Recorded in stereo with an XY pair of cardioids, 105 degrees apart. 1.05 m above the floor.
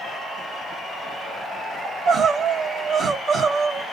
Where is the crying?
60° right, 1.8 m.